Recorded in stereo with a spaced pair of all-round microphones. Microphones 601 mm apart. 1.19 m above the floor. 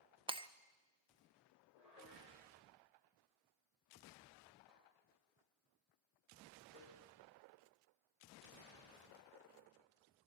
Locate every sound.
0.3 s breaking glass: 10° right (ahead or behind), 0.5 m
1.8 s dishes clattering: 80° left, 4.5 m